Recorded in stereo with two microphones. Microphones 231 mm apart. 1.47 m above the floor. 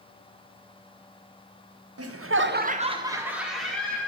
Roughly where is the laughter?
Right.